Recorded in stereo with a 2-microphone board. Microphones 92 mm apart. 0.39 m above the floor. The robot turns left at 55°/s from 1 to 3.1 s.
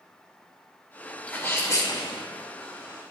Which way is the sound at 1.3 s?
165° left.